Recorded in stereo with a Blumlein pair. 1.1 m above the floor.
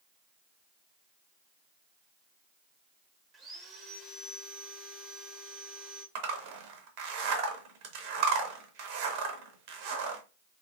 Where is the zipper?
45° right, 0.8 m.